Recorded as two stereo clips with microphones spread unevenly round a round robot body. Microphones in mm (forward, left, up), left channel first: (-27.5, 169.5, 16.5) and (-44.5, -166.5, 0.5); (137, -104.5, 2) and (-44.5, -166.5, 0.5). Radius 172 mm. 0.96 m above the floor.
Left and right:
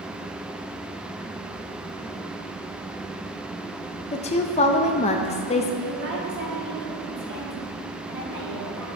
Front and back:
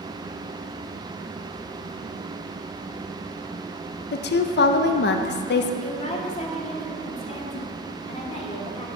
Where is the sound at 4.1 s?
15° left, 0.5 m.